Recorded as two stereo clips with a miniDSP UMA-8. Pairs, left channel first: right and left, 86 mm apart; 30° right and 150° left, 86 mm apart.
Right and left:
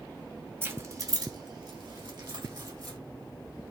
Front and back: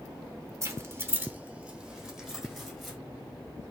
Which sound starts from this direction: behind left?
Keys jangling, at 0.6 s.